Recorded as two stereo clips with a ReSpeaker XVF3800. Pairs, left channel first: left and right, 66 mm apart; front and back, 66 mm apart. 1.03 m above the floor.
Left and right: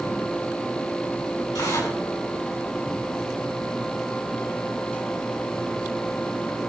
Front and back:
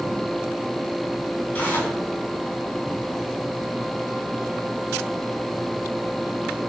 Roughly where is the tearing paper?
Ahead left.